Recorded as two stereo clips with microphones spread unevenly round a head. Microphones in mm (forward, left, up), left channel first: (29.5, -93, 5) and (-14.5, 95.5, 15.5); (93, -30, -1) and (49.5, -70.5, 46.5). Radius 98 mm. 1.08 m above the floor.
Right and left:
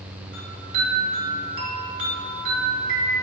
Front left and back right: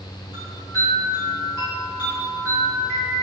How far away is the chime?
About 2.5 m.